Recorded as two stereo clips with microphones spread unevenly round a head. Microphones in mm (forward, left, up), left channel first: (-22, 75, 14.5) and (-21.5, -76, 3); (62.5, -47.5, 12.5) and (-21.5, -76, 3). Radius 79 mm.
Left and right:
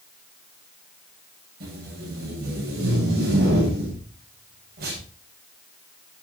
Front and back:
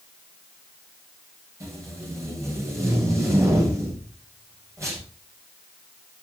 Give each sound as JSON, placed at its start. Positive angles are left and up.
{"t": 1.6, "sound": "tape being pulled", "azimuth_deg": -105, "distance_m": 7.5}